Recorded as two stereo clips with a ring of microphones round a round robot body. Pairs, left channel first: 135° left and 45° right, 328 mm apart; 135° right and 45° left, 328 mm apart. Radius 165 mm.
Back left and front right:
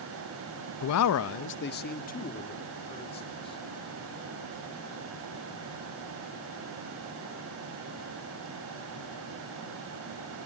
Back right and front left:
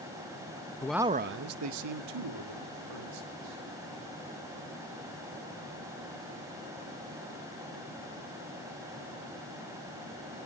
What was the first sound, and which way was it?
A man speaking, 150° left.